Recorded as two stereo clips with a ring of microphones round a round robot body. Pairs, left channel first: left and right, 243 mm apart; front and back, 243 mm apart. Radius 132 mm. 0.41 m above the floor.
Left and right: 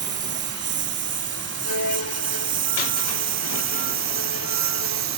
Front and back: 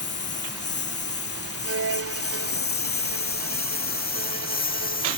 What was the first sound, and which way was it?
A lawn mower, 45° right.